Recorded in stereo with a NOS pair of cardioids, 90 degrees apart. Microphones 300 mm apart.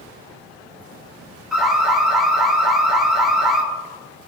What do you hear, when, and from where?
1.5 s an alarm: straight ahead, 4 m